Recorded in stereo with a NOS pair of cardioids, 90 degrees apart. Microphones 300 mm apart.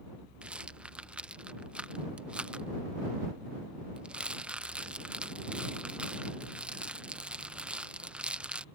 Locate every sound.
0.4 s a rattle: 5° right